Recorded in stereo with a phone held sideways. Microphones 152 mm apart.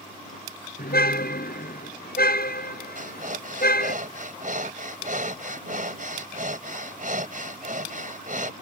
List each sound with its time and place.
0.8 s a car horn: 85° left
3.0 s breathing: 60° right (ahead or behind)